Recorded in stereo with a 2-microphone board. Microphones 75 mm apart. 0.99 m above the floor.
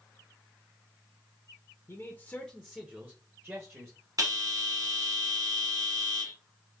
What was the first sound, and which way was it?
A man speaking, 35° left (ahead or behind).